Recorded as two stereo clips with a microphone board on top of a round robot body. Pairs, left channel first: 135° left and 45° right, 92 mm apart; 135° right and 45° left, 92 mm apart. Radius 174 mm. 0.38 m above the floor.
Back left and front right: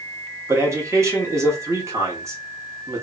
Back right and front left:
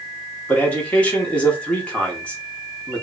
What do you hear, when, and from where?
0.5 s a man speaking: 70° right, 1.3 m